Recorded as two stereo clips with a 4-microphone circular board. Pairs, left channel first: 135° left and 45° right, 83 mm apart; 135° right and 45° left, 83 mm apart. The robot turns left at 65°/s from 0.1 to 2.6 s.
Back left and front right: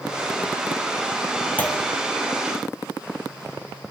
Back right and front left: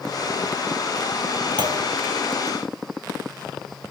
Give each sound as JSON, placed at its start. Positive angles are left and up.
{"t": 1.6, "sound": "a clunk", "azimuth_deg": 65, "distance_m": 2.0}